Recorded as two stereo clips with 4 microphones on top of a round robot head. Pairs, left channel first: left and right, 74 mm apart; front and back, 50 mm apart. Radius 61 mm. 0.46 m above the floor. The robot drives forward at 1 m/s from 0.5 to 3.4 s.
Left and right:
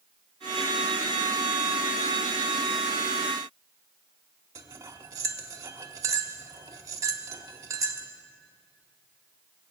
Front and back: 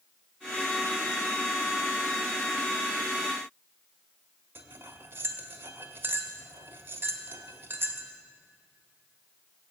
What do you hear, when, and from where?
4.5 s cutlery clinking: 135° right, 1.0 m